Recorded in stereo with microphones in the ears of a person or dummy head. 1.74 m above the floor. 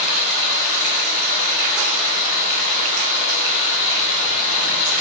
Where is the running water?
80° left, 7 m.